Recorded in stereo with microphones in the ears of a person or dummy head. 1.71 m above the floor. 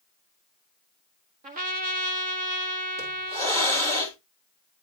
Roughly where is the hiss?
Right.